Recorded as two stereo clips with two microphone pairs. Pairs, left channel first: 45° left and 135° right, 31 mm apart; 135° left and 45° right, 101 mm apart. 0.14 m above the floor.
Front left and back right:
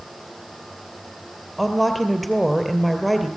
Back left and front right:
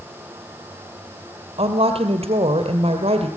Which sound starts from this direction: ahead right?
A woman speaking, at 1.6 s.